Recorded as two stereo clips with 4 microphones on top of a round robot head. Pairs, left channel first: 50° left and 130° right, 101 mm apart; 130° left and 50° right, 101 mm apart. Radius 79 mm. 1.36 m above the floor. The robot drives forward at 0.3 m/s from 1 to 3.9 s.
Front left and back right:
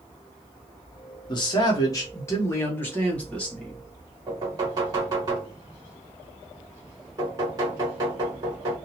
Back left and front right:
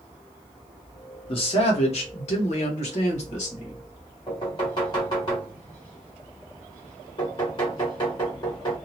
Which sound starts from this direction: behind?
Knocking, at 4.3 s.